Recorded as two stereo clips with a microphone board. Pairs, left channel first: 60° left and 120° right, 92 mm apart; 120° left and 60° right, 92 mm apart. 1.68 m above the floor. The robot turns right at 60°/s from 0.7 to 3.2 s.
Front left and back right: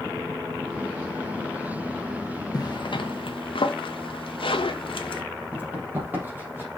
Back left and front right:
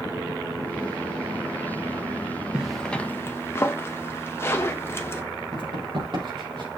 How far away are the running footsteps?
About 4 m.